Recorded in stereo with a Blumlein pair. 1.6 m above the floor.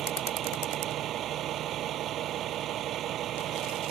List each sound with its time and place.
0.0 s a vehicle: 30° right